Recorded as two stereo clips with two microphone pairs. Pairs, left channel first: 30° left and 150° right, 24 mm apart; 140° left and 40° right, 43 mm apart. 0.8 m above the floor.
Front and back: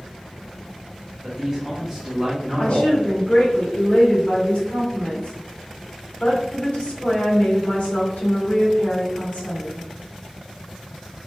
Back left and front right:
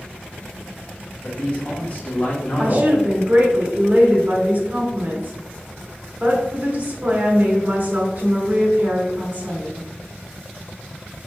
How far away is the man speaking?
About 1.3 m.